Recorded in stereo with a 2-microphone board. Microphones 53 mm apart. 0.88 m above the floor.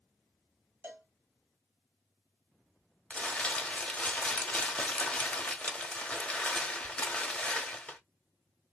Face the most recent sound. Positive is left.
turn(degrees=25)  # may be behind; listen again after turning